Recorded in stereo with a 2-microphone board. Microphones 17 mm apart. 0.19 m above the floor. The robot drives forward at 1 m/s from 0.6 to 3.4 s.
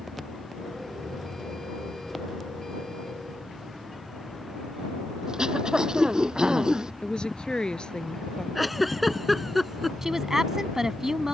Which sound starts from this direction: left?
A woman speaking, at 7.0 s.